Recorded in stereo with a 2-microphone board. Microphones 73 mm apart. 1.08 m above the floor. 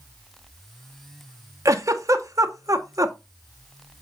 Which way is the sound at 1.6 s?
45° right (ahead or behind).